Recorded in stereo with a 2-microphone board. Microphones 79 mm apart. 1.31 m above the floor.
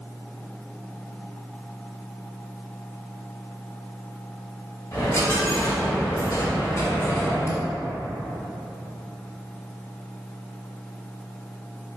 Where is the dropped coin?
40° left (ahead or behind), 1.2 m.